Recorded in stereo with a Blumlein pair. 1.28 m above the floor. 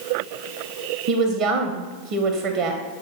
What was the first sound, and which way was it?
A woman speaking, 35° right.